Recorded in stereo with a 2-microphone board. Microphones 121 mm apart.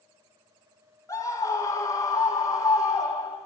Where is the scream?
25° left (ahead or behind), 4 m; by 3.4 s 30° left (ahead or behind), 5.5 m.